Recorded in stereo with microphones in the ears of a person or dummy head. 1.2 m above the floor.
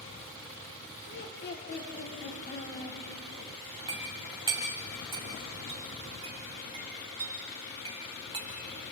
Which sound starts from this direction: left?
Laughter, at 1.1 s.